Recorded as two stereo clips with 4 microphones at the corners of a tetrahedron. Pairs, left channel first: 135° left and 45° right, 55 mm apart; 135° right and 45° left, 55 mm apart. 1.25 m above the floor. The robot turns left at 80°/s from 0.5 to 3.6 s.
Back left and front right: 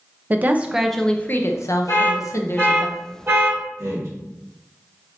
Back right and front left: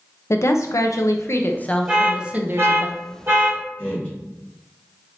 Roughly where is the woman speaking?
Right.